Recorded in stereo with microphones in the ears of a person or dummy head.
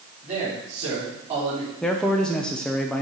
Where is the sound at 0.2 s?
40° right (ahead or behind), 3.5 m.